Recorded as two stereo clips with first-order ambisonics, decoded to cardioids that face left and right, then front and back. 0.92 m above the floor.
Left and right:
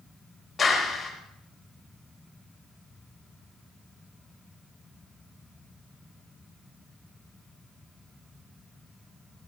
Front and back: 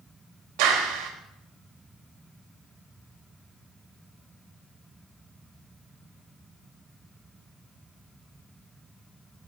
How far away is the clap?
About 4 m.